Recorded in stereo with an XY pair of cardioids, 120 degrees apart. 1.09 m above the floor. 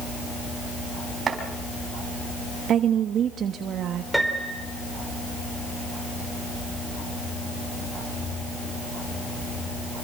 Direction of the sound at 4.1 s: 5° right.